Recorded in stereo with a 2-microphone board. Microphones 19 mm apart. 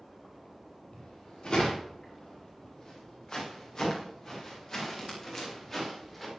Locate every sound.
0.9 s footsteps: 45° left (ahead or behind), 8.5 m; by 6.3 s 10° left (ahead or behind), 6.5 m